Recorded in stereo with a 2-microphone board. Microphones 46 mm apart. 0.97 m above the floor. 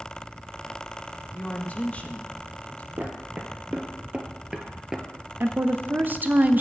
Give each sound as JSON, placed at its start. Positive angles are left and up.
{"t": 1.3, "sound": "a woman speaking", "side_deg": 35, "distance_m": 0.9}
{"t": 3.0, "sound": "footsteps", "side_deg": -40, "distance_m": 1.4}
{"t": 5.4, "sound": "a woman speaking", "side_deg": -45, "distance_m": 0.5}